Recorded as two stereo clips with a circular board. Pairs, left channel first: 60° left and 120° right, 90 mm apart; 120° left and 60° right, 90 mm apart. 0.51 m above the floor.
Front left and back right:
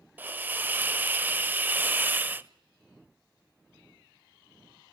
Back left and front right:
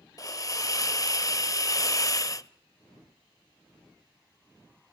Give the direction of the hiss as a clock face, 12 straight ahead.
6 o'clock.